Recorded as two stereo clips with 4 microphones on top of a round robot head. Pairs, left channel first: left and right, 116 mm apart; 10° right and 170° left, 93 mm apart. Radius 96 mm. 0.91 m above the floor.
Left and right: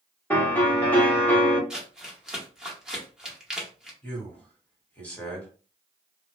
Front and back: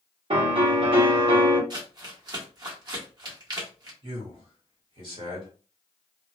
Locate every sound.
0.3 s a piano: 165° left, 1.4 m
1.7 s crumpling: 175° right, 1.2 m
4.0 s a man speaking: 165° left, 1.7 m